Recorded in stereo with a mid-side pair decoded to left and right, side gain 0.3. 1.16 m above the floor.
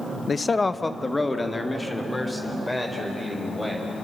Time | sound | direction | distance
0.3 | a man speaking | 50° left | 0.6 m